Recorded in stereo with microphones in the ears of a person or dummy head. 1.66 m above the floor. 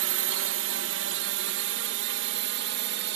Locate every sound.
0.0 s a drone: 65° right (ahead or behind); by 3.2 s 60° right (ahead or behind)